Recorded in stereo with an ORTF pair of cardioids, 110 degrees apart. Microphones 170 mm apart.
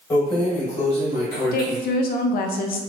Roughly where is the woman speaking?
Ahead left.